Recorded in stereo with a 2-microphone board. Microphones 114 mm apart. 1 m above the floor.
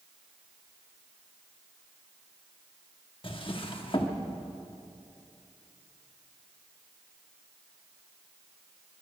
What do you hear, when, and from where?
3.2 s a drawer: 50° left (ahead or behind), 1.2 m